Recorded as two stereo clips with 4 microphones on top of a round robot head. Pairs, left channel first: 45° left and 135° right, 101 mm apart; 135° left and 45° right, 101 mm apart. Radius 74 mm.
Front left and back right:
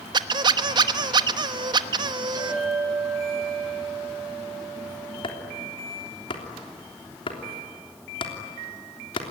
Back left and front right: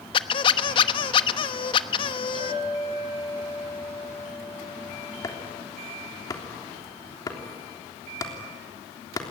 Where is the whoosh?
No whoosh in this recording.